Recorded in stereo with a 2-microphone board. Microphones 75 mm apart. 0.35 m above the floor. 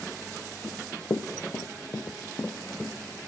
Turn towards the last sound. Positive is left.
turn(degrees=25)  # may be behind; listen again after turning